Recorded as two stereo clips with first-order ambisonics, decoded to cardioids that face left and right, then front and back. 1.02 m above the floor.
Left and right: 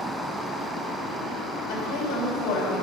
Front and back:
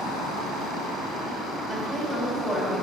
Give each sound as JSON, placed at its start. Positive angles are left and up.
{"t": 1.7, "sound": "a woman speaking", "azimuth_deg": 80, "distance_m": 3.5}